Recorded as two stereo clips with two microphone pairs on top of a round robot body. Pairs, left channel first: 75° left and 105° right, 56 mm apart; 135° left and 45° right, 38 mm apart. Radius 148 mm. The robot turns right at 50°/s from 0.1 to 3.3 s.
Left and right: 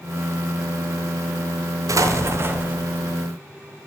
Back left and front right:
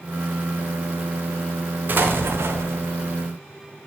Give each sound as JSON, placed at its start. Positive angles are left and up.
{"t": 1.9, "sound": "an explosion", "azimuth_deg": -85, "distance_m": 0.8}